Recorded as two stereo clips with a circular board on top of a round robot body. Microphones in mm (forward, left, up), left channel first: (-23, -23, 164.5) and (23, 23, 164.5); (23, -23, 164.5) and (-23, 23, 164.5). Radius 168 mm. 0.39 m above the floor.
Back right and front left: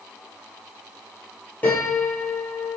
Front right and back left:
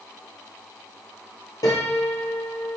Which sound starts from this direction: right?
A piano, at 1.6 s.